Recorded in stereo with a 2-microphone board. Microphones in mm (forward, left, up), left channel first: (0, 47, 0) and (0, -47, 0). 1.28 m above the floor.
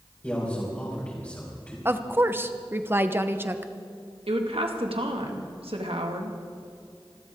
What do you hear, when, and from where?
0.2 s a man speaking: 20° left (ahead or behind), 4.5 m
1.9 s a woman speaking: 25° right (ahead or behind), 0.9 m
4.3 s a woman speaking: 85° right, 2.0 m